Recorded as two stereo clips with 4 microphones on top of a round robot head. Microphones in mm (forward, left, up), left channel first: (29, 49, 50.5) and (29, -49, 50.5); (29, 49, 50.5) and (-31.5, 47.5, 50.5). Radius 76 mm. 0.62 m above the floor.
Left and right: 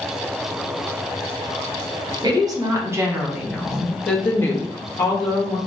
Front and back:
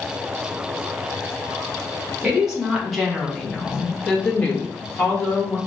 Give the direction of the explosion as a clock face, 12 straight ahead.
I don't hear an explosion.